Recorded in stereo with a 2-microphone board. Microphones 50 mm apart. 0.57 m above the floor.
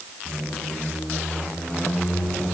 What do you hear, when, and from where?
0.2 s a squeak: 5° left (ahead or behind), 3.5 m